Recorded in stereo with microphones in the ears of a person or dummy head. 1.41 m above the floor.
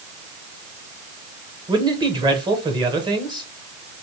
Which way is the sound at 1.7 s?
25° right (ahead or behind).